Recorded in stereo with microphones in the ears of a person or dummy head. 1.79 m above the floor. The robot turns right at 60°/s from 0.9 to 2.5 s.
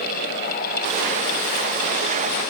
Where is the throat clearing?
I don't hear throat clearing.